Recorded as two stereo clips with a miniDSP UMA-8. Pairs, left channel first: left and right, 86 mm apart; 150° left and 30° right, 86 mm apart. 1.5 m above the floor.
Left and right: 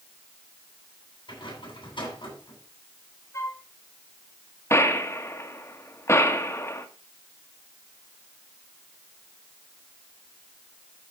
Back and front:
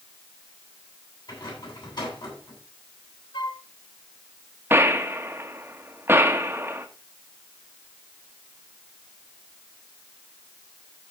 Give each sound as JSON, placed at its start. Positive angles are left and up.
{"t": 1.3, "sound": "a rattle", "azimuth_deg": 120, "distance_m": 9.5}
{"t": 3.3, "sound": "a flute", "azimuth_deg": 140, "distance_m": 1.5}
{"t": 4.7, "sound": "a gunshot", "azimuth_deg": 35, "distance_m": 1.3}